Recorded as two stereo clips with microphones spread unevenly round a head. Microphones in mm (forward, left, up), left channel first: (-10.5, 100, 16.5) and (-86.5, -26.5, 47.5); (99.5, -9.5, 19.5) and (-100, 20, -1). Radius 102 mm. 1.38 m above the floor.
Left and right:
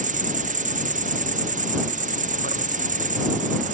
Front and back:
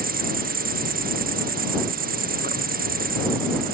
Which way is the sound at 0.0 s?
155° right.